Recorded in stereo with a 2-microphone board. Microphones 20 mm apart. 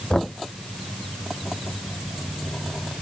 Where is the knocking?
25° left (ahead or behind).